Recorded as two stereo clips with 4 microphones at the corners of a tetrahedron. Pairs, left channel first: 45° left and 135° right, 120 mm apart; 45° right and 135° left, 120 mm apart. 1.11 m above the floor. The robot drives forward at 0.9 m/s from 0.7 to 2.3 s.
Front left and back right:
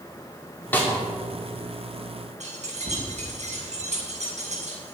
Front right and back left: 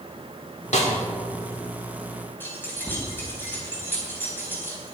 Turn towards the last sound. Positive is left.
turn(degrees=-120)